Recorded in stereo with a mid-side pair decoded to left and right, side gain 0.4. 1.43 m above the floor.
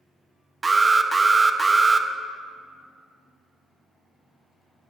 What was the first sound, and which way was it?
An alarm, 30° right.